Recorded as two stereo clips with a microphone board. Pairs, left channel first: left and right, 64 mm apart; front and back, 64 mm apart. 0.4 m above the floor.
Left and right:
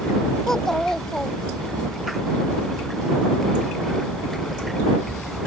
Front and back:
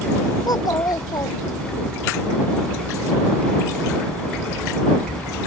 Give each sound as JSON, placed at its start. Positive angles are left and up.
{"t": 0.5, "sound": "a child speaking", "azimuth_deg": 10}